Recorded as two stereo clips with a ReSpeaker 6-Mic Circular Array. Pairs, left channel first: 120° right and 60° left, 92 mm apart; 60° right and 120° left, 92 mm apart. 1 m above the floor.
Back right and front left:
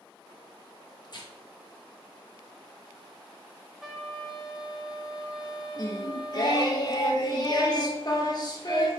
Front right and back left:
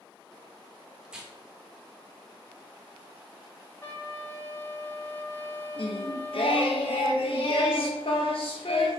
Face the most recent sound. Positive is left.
turn(degrees=-75)